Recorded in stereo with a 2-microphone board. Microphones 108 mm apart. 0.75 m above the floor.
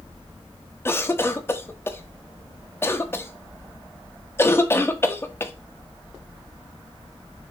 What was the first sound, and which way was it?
A cough, 20° left (ahead or behind).